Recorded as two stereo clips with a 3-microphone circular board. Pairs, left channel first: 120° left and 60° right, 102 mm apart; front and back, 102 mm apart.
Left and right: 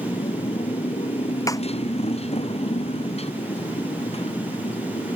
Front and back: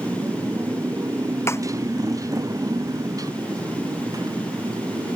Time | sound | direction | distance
0.0 | a motorcycle | 120° left | ?
1.5 | a snare drum | 65° left | ?